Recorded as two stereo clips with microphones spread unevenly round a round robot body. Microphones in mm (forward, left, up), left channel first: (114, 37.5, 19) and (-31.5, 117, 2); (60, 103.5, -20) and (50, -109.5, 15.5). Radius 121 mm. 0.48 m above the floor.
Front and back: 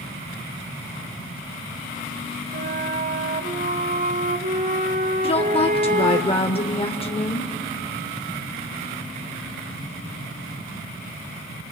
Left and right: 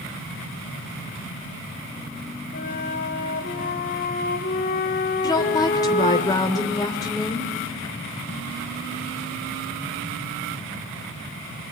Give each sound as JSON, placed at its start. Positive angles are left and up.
{"t": 2.5, "sound": "a flute", "azimuth_deg": 125, "distance_m": 1.5}
{"t": 5.2, "sound": "a woman speaking", "azimuth_deg": 25, "distance_m": 1.5}